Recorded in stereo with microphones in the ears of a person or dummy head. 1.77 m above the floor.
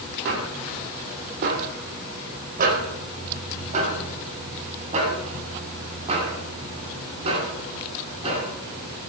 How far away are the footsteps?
About 3 m.